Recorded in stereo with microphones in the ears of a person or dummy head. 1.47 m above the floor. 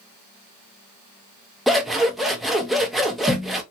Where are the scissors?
Centre (ahead or behind), 0.6 m.